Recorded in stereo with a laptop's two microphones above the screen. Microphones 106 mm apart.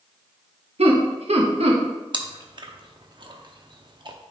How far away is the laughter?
About 1.2 m.